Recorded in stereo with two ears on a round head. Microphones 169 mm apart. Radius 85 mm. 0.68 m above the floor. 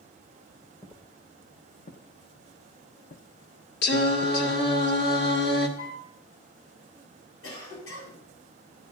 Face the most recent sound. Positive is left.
turn(degrees=80)